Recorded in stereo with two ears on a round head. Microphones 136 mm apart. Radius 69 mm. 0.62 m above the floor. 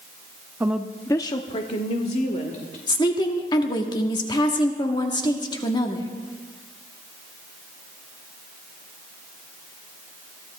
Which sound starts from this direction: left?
A woman speaking, at 2.9 s.